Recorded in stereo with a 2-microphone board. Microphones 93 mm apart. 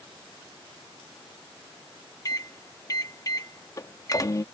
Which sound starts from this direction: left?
A microwave, at 2.2 s.